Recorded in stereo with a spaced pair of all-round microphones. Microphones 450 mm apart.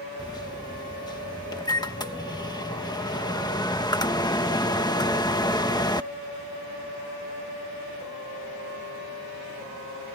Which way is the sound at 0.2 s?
10° left (ahead or behind).